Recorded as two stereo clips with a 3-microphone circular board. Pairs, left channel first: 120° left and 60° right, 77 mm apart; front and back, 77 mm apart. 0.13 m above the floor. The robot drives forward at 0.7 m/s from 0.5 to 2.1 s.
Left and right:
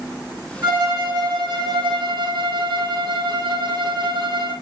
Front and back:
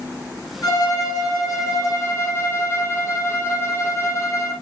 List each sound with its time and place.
0.6 s a violin: 40° right, 4 m; by 4.5 s 50° right, 3 m